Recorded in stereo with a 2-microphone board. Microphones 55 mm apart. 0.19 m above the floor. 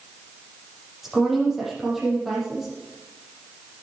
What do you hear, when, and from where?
1.0 s a woman speaking: centre (ahead or behind), 6 m